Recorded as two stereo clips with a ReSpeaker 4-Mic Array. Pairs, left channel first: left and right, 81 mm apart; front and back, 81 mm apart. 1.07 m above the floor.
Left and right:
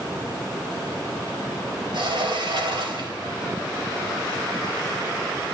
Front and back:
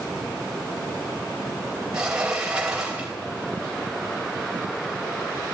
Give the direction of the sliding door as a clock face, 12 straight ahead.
3 o'clock.